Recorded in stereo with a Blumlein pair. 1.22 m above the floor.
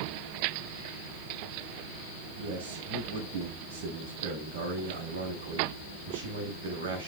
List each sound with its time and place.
2.4 s a man speaking: 55° right, 7 m